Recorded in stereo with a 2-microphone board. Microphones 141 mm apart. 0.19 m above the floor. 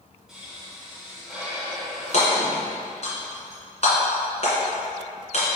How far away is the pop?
About 2 m.